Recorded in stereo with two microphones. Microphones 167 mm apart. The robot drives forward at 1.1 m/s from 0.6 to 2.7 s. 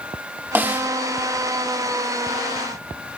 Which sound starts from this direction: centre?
A snare drum, at 0.6 s.